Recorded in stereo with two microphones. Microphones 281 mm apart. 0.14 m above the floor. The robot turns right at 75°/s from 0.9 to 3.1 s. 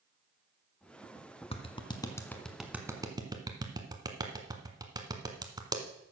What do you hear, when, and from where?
1.5 s a clap: 20° left (ahead or behind), 1.3 m; by 5.8 s 15° right (ahead or behind), 1.3 m